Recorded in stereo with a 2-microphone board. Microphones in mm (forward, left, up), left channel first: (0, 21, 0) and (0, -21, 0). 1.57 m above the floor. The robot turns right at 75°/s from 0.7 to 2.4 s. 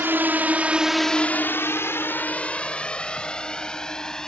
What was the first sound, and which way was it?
A drone, 60° right (ahead or behind).